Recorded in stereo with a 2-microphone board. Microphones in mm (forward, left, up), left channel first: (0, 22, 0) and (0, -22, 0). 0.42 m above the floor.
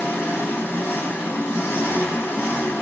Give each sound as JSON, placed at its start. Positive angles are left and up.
{"t": 0.0, "sound": "an engine running", "side_deg": 90, "distance_m": 0.8}